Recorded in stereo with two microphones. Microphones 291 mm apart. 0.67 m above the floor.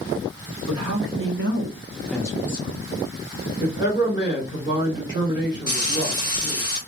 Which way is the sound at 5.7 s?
15° right (ahead or behind).